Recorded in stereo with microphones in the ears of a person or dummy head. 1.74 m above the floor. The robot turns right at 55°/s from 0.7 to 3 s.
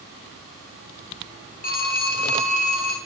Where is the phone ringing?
50° left, 1.4 m; by 3.0 s 125° left, 1.4 m.